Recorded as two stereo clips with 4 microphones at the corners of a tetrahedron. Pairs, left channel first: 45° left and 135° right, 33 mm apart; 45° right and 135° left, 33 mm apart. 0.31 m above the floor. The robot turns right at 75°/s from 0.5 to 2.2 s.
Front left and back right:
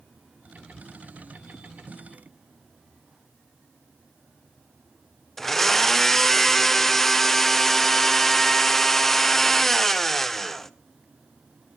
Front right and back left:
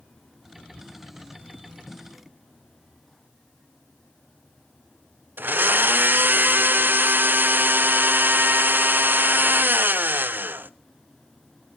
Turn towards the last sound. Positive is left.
turn(degrees=125)